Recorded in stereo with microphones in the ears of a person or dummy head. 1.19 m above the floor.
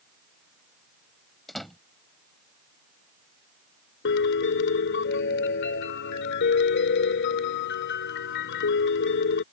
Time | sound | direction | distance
1.5 | a door slam | 5° left (ahead or behind) | ?
4.0 | a piano | 70° left (ahead or behind) | ?